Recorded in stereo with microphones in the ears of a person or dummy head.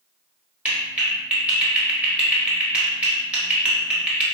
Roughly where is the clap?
Centre.